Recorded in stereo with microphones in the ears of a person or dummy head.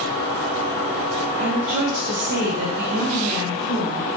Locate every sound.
1.4 s a woman speaking: 35° right (ahead or behind), 0.6 m; by 4.1 s 55° right (ahead or behind), 1.9 m